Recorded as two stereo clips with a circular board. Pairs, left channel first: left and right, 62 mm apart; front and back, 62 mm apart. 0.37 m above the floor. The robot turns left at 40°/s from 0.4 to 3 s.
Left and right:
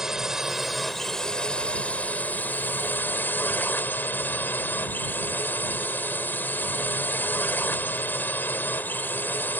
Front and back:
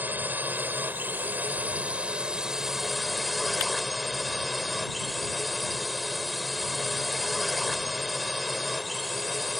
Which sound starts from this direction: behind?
A drone, at 0.0 s.